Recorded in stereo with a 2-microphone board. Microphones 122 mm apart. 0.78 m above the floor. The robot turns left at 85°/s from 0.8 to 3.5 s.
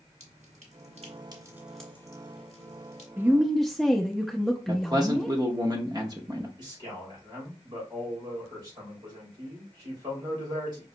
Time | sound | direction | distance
0.2 | dripping | 70° right (ahead or behind) | 1.5 m
3.2 | a woman speaking | 20° right (ahead or behind) | 0.5 m
4.7 | a man speaking | 30° right (ahead or behind) | 0.7 m
6.6 | a man speaking | 35° right (ahead or behind) | 3.5 m